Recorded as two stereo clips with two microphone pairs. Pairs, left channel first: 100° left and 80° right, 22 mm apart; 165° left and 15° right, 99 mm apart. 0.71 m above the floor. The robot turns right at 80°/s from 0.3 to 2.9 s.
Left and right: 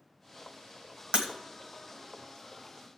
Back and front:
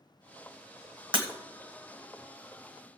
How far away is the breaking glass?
About 1.6 m.